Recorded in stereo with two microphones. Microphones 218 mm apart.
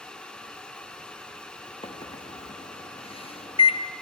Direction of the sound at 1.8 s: 25° left (ahead or behind).